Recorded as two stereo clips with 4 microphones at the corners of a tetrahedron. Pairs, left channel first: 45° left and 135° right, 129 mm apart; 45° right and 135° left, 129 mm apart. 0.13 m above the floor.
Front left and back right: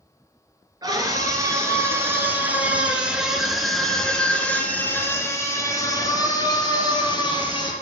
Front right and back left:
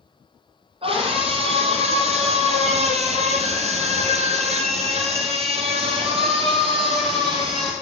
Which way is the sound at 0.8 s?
170° left.